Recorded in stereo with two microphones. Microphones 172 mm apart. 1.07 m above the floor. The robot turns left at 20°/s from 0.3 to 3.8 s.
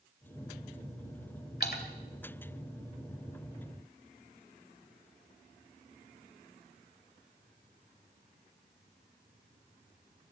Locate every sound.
1.6 s a splash: 70° left (ahead or behind), 1.9 m; by 1.8 s 65° left (ahead or behind), 1.9 m